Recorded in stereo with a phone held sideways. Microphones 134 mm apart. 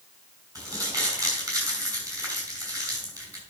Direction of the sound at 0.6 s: 25° right (ahead or behind).